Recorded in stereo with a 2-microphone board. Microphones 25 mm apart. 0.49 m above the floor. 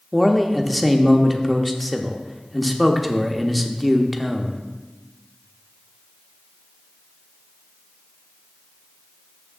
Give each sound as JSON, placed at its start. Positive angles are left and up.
{"t": 0.1, "sound": "a man speaking", "side_deg": 0, "distance_m": 0.7}